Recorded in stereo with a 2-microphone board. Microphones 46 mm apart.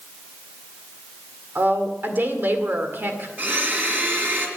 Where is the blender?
45° right (ahead or behind), 2.5 m.